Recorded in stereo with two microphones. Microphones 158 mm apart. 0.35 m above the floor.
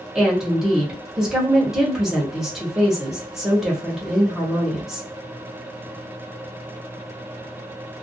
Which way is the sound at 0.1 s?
5° right (ahead or behind).